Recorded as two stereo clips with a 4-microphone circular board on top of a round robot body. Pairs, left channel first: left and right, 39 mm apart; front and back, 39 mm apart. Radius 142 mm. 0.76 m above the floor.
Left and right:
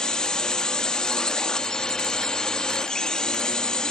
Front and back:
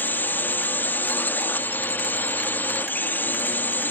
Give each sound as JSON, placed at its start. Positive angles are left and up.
{"t": 0.0, "sound": "a drone", "azimuth_deg": 20}